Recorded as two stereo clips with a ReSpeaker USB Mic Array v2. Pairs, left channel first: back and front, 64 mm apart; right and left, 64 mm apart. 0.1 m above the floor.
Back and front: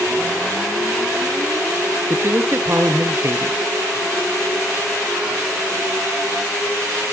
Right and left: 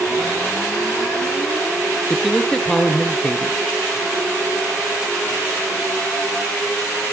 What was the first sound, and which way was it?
A man speaking, 15° right.